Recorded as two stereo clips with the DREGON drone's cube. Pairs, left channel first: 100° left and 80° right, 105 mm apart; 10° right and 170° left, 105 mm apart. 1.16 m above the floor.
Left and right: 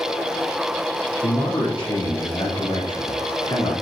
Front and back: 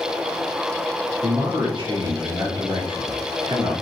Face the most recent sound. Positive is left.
turn(degrees=135)